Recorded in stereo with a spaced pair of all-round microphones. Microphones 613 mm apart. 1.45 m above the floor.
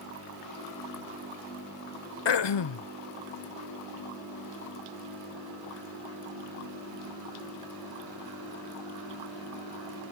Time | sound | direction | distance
2.2 | throat clearing | 45° left (ahead or behind) | 0.5 m